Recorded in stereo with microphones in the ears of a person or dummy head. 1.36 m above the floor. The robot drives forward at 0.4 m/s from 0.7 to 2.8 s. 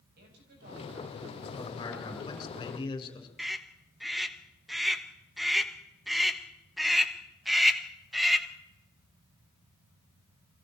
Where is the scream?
5° right (ahead or behind), 1.7 m.